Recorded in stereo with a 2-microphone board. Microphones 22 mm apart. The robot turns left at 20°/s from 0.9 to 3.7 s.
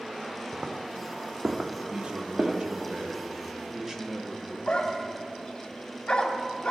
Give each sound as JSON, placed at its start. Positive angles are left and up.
{"t": 0.5, "sound": "footsteps", "side_deg": -40, "distance_m": 1.4}
{"t": 1.9, "sound": "a man speaking", "azimuth_deg": -115, "distance_m": 1.3}
{"t": 4.7, "sound": "a dog barking", "side_deg": 40, "distance_m": 1.2}